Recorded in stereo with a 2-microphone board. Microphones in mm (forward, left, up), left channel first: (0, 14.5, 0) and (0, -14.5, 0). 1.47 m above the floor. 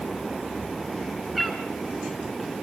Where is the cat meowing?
10° right (ahead or behind), 4 m.